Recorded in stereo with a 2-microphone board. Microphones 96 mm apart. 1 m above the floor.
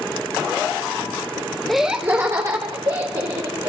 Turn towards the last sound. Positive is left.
turn(degrees=-50)  # may be behind; listen again after turning